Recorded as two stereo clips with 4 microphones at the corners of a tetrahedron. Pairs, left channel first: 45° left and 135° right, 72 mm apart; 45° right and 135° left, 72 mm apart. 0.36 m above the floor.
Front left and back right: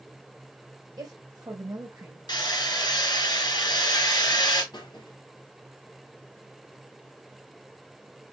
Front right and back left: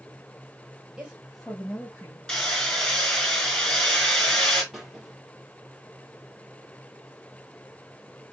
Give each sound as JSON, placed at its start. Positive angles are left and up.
{"t": 1.0, "sound": "a woman speaking", "azimuth_deg": -150, "distance_m": 1.8}
{"t": 2.3, "sound": "hammering", "azimuth_deg": 40, "distance_m": 2.5}
{"t": 4.7, "sound": "a squeak", "azimuth_deg": 50, "distance_m": 1.9}